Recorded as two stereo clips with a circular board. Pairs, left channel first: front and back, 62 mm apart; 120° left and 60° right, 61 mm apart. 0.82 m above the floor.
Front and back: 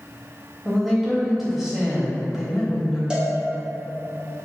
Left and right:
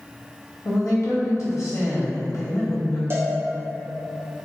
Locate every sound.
0.7 s a woman speaking: 95° left, 0.8 m
3.1 s a cowbell: 105° right, 0.5 m